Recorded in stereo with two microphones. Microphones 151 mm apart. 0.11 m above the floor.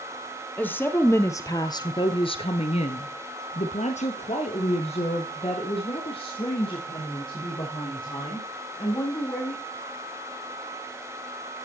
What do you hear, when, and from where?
0.6 s a woman speaking: 10° left (ahead or behind), 2.5 m; by 9.6 s 30° left (ahead or behind), 7 m